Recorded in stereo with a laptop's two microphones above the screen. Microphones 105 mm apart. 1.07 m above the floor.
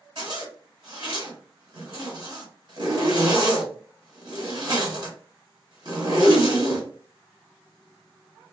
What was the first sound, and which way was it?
A zipper, 50° right (ahead or behind).